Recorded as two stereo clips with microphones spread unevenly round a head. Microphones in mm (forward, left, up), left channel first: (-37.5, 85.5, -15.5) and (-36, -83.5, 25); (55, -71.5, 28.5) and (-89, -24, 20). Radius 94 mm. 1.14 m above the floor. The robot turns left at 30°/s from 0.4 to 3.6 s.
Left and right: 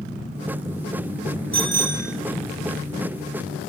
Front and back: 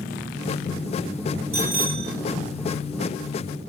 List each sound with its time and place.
1.5 s a bicycle bell: 175° left, 4.5 m; by 2.1 s 155° left, 4.5 m